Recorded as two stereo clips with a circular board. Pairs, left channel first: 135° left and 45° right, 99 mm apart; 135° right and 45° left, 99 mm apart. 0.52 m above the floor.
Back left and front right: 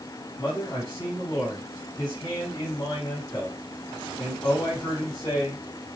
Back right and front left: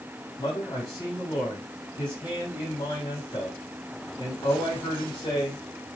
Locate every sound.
0.4 s a man speaking: 175° left, 4.5 m